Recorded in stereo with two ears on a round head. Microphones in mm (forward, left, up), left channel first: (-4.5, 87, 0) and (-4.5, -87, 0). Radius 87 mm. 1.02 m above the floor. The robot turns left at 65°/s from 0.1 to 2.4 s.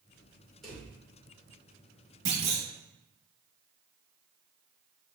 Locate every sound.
0.6 s a drawer: centre (ahead or behind), 2 m; by 0.9 s 15° left (ahead or behind), 2 m
2.2 s a clunk: 20° right (ahead or behind), 1.6 m; by 2.6 s 30° right (ahead or behind), 1.6 m